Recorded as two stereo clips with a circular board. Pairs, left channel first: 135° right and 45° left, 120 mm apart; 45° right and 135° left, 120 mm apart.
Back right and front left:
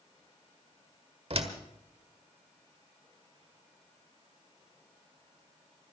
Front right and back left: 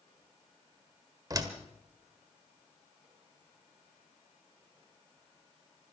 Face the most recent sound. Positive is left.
turn(degrees=80)